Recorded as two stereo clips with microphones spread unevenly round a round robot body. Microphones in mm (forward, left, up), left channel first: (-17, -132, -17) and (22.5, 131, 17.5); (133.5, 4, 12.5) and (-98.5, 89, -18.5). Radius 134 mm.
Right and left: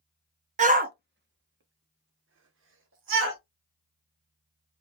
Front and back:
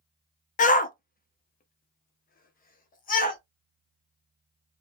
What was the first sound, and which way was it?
A shout, 25° left.